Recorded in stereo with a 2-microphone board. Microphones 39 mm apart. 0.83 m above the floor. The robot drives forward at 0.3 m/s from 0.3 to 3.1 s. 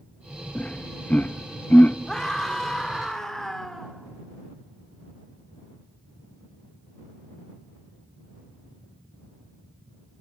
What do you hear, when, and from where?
0.6 s laughter: 35° left (ahead or behind), 0.7 m; by 2.0 s 40° left (ahead or behind), 0.7 m
2.1 s a scream: 15° left (ahead or behind), 2.5 m; by 3.9 s 10° left (ahead or behind), 3 m